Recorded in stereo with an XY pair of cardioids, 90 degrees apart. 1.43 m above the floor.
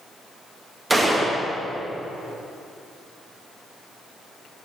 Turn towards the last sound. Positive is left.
turn(degrees=-25)